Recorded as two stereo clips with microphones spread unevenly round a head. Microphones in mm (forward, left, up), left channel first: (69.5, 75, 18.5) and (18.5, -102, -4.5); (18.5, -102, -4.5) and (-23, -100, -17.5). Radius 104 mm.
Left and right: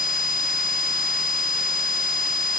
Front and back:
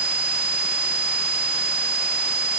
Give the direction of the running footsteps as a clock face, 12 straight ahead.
No running footsteps in this recording.